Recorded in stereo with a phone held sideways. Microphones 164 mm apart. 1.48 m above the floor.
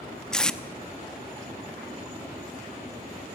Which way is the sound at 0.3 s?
5° left (ahead or behind).